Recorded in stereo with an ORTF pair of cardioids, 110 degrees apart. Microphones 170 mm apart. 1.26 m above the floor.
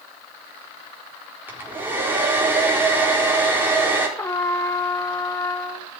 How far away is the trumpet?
About 1.2 m.